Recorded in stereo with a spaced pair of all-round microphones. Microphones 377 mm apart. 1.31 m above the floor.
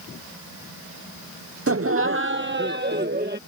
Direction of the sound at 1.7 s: 40° right (ahead or behind).